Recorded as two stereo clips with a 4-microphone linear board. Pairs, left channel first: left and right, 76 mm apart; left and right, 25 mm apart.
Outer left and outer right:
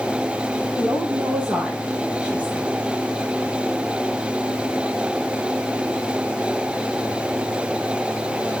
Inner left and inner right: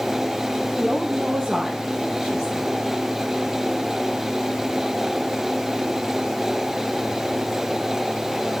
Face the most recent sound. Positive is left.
turn(degrees=-20)  # may be behind; listen again after turning